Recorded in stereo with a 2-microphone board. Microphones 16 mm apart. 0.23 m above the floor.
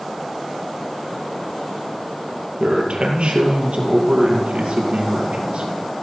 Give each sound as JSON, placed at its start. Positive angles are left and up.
{"t": 2.6, "sound": "a man speaking", "side_deg": -70, "distance_m": 4.5}